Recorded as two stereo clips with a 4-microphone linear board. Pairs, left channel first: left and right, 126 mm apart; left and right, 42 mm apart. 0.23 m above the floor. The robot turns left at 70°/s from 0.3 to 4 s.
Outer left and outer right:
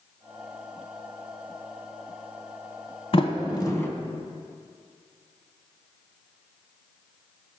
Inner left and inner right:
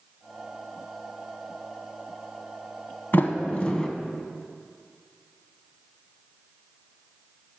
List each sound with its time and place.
3.1 s a sliding door: 50° left (ahead or behind), 0.8 m; by 3.9 s 20° left (ahead or behind), 0.8 m